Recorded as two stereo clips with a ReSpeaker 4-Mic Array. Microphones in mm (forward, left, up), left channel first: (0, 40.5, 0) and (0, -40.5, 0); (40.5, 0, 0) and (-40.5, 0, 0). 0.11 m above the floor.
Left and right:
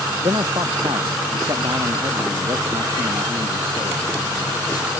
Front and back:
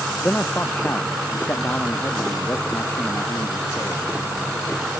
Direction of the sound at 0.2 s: 70° right.